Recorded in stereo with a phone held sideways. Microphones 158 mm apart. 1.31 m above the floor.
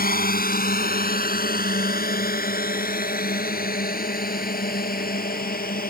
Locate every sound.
0.0 s a drone: 80° left